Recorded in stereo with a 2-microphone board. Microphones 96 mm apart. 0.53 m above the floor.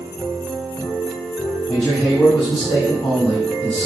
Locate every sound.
1.7 s a man speaking: 40° left (ahead or behind), 4.5 m; by 3.9 s 25° left (ahead or behind), 4 m